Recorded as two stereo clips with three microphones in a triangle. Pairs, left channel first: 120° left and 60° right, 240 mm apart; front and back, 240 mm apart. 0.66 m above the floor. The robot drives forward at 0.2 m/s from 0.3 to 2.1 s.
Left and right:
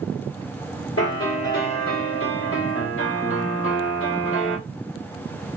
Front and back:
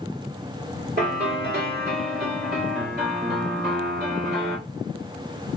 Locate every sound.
1.0 s a piano: 135° left, 1.7 m; by 4.6 s 140° left, 1.8 m